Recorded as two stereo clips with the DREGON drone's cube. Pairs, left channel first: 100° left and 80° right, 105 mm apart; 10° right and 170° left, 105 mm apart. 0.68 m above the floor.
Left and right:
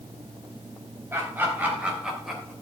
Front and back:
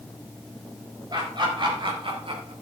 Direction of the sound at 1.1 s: 145° right.